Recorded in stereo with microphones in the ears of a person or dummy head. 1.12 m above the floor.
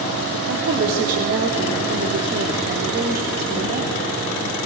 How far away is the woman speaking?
About 3 m.